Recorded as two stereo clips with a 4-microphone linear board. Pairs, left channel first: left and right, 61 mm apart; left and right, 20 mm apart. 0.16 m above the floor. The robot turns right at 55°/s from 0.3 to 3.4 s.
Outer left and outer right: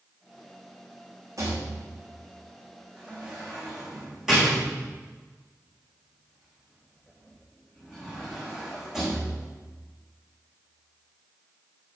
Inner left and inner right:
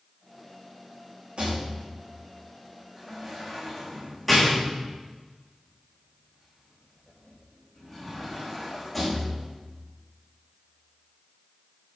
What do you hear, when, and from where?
1.4 s a rattle: 60° right (ahead or behind), 4.5 m; by 9.5 s 10° right (ahead or behind), 4.5 m